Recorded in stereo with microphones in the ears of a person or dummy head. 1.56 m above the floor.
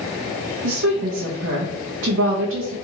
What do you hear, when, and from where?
0.6 s a woman speaking: 85° right, 0.7 m